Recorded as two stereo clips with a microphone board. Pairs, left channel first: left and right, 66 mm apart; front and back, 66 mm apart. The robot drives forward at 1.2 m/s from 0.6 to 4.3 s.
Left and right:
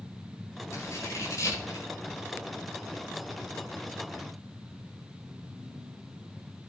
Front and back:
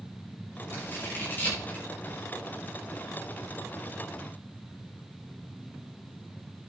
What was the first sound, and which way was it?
Scissors, 50° left.